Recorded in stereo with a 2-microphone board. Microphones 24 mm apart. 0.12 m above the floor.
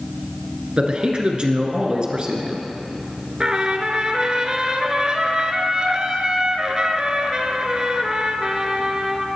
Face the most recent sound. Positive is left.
turn(degrees=-30)  # may be behind; listen again after turning